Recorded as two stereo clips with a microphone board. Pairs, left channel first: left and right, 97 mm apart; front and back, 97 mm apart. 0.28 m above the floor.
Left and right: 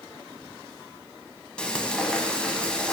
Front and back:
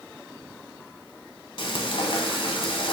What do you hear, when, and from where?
1.6 s frying: 10° left, 1.0 m